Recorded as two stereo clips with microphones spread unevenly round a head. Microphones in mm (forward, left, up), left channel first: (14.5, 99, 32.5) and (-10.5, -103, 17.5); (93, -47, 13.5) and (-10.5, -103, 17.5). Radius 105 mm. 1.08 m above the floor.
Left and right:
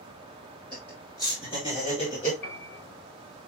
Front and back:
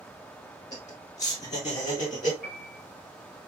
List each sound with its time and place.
0.7 s laughter: 5° right, 1.9 m; by 2.3 s 25° left, 3 m
2.4 s a piano: 35° left, 2.5 m